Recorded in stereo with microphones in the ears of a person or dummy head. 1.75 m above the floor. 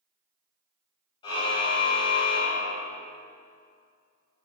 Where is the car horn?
25° left (ahead or behind), 5.5 m; by 3.0 s 30° left (ahead or behind), 7.5 m.